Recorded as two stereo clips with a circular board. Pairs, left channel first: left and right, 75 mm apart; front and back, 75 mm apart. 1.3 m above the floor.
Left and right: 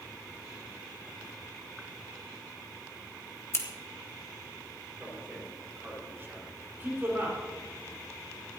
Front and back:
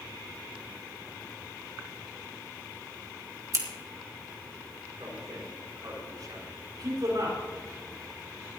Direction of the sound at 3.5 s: 140° left.